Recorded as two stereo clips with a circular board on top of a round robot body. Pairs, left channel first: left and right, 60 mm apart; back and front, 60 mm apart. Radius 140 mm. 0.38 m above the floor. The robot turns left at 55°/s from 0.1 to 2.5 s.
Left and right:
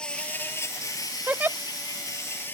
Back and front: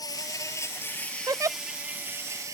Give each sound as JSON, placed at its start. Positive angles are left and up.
{"t": 0.0, "sound": "an insect", "azimuth_deg": 165}
{"t": 1.3, "sound": "a giggle", "azimuth_deg": -20}